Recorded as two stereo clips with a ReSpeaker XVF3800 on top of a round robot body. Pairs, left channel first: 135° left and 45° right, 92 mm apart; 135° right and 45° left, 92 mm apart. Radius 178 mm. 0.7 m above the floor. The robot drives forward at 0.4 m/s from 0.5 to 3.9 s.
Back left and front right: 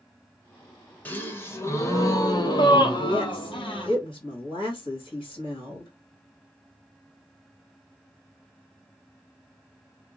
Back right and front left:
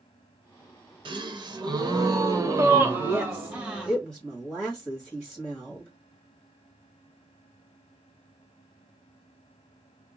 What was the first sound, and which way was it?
A gasp, 65° left.